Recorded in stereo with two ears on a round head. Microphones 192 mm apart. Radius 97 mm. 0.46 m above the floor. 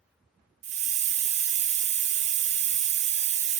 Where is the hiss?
30° right (ahead or behind), 0.5 m.